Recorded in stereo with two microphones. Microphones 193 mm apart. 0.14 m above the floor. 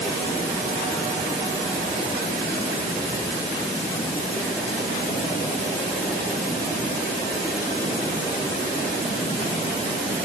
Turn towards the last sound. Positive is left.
No sound to turn to.